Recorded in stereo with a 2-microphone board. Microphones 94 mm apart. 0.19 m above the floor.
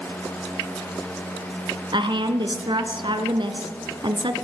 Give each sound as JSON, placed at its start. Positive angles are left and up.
{"t": 1.9, "sound": "a woman speaking", "side_deg": -60, "distance_m": 1.8}